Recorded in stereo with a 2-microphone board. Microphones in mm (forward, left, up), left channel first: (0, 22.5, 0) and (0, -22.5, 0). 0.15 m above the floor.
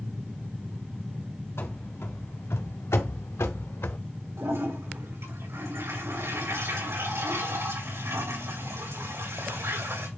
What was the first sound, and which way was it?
Running footsteps, 70° left (ahead or behind).